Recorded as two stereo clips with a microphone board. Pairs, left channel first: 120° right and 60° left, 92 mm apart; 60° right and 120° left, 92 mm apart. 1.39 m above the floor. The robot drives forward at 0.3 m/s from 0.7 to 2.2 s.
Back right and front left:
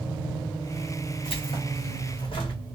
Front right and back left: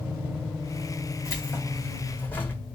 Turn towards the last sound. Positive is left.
turn(degrees=-130)